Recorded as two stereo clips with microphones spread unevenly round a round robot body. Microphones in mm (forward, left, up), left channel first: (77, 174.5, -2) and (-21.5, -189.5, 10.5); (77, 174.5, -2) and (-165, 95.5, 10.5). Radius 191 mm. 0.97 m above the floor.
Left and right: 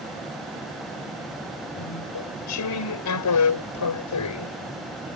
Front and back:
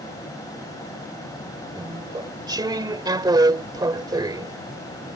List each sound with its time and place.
1.8 s chewing: 125° left